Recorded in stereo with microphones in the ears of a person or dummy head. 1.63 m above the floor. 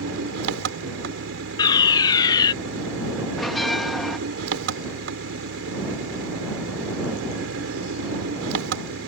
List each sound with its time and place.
0.0 s an engine running: 80° right
1.6 s a fire alarm: 20° left (ahead or behind)
3.4 s a bell: 5° left (ahead or behind)